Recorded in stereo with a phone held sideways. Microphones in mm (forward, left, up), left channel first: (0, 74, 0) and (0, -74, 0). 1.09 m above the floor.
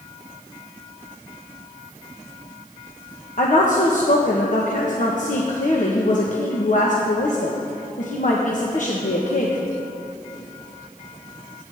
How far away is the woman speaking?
About 1.1 m.